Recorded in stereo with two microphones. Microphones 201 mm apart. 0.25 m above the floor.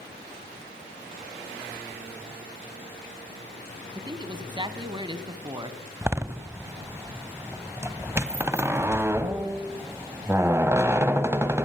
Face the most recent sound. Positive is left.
turn(degrees=-15)  # may be behind; listen again after turning